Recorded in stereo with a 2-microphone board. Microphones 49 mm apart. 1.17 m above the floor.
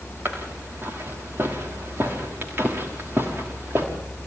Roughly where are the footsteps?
Right.